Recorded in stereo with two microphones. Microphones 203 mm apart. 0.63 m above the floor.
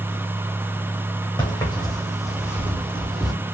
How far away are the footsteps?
About 2.5 m.